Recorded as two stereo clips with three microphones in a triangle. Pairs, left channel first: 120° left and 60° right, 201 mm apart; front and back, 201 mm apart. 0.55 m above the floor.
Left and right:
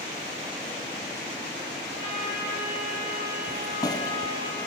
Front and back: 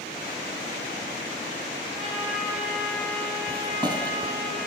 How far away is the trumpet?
About 3 m.